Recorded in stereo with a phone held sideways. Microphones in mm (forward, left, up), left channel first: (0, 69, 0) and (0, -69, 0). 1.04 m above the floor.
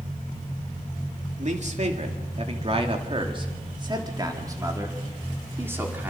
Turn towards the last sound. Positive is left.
turn(degrees=-10)  # may be behind; listen again after turning